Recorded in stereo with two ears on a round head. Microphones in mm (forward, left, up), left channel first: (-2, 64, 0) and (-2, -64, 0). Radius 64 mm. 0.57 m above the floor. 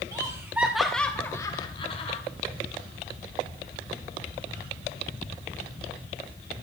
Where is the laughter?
25° right (ahead or behind), 1.2 m; by 2.2 s 45° left (ahead or behind), 1.5 m.